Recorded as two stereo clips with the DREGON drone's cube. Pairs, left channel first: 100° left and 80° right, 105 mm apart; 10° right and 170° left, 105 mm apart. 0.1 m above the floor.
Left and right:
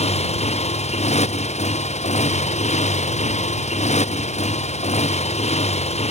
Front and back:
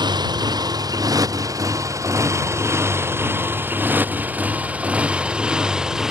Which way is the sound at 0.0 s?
120° left.